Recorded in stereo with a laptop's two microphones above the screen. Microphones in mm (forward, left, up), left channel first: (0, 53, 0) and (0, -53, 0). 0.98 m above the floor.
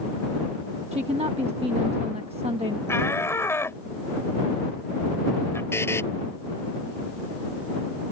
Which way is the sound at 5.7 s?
20° left (ahead or behind).